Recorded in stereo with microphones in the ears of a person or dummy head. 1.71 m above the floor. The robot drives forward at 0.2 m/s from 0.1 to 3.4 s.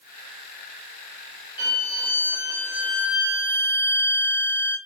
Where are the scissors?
No scissors in this recording.